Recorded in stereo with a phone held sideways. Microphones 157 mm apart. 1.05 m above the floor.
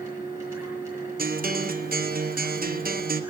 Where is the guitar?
70° right (ahead or behind), 0.6 m.